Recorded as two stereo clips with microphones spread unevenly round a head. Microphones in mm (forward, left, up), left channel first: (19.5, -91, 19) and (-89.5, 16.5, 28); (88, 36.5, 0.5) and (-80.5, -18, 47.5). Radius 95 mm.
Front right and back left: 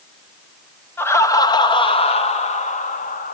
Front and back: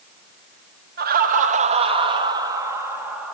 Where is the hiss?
No hiss in this recording.